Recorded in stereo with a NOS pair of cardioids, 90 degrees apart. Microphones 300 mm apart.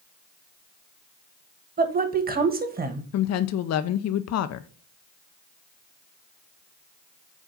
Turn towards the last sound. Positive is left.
turn(degrees=60)